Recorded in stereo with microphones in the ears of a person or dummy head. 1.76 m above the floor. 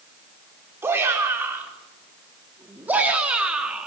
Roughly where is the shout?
Centre.